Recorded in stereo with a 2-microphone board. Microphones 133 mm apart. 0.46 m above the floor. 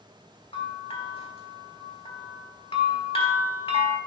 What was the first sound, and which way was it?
A bell, 45° left (ahead or behind).